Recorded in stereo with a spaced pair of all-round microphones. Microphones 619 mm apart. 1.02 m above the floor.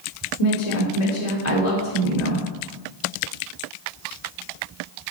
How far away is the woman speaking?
About 3 m.